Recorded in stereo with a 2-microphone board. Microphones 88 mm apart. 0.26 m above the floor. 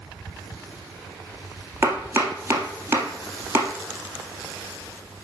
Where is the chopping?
30° right (ahead or behind), 1.6 m.